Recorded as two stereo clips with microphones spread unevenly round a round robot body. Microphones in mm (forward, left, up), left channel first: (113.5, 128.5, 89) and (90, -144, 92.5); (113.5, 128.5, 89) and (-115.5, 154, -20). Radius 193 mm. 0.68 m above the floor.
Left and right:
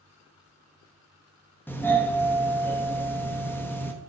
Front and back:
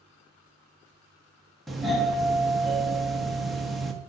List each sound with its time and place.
1.7 s a doorbell: 155° left, 1.1 m